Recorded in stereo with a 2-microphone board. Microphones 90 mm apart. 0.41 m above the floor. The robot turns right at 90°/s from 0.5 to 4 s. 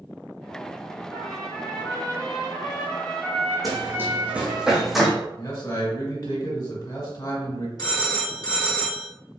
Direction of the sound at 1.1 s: 20° right.